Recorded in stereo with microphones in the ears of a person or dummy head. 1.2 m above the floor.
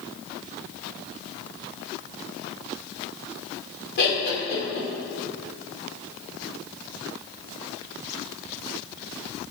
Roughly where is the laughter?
Left.